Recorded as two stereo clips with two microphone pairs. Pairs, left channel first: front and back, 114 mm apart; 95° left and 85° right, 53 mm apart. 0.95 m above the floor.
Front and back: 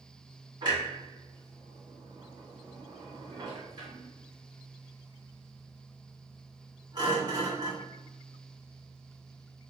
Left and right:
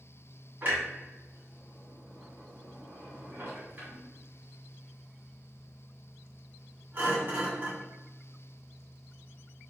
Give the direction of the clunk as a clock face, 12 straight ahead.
4 o'clock.